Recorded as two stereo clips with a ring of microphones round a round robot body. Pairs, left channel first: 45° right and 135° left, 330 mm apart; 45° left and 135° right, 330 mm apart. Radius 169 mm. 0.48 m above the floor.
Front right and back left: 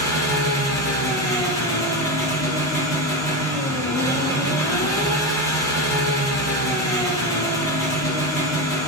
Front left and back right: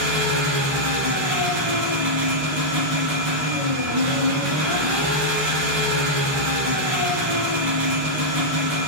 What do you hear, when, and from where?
0.0 s an engine running: 125° right, 1.7 m